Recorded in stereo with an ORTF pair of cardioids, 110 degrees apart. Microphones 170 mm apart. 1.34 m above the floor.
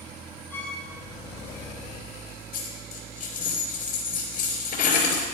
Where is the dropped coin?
55° left, 4 m.